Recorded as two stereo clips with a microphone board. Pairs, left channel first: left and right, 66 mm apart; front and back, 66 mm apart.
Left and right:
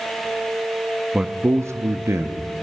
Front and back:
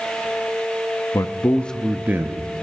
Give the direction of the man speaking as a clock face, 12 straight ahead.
12 o'clock.